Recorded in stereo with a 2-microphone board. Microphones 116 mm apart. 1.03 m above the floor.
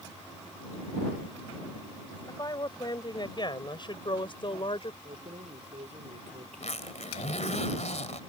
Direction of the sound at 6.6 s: 75° left (ahead or behind).